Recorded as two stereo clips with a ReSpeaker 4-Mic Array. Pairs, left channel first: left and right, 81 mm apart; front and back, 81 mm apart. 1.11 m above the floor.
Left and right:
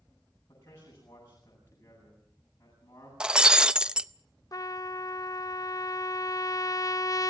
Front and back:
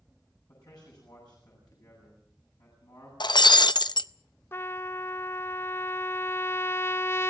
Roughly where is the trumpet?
Ahead left.